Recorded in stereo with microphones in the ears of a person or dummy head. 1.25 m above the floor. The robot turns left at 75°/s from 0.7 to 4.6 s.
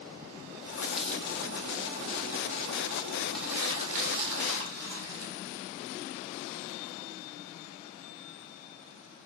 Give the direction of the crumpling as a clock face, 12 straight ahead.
12 o'clock.